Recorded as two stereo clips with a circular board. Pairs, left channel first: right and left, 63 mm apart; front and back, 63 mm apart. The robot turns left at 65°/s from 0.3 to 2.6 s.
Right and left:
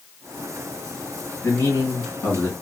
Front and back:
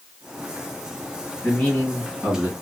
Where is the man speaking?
65° right, 1.9 m; by 2.5 s 135° right, 1.9 m.